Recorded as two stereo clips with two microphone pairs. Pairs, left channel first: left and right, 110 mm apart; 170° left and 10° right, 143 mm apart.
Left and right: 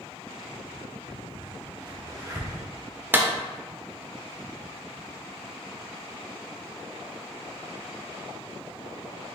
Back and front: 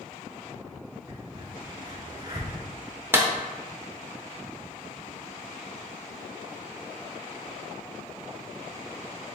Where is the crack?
60° right, 1.1 m.